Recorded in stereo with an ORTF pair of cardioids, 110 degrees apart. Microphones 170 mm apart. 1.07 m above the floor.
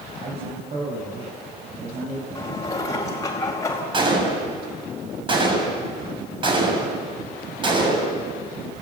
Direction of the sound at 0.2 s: 40° right.